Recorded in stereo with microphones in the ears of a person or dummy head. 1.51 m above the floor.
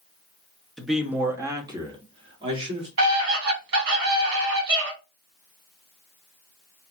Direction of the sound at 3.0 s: 75° right (ahead or behind).